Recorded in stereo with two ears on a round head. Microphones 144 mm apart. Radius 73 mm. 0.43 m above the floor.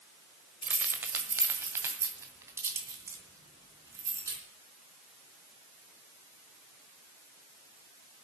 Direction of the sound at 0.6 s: 10° right (ahead or behind).